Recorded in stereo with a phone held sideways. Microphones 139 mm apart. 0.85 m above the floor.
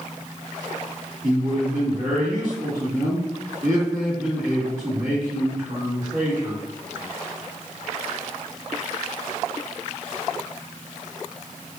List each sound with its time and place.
1.2 s a man speaking: 60° right (ahead or behind), 1.3 m